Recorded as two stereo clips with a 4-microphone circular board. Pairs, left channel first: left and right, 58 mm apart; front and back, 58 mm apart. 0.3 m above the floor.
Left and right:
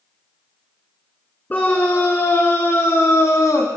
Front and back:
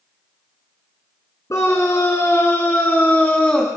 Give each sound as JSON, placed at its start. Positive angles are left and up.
{"t": 1.5, "sound": "a scream", "azimuth_deg": 30, "distance_m": 4.5}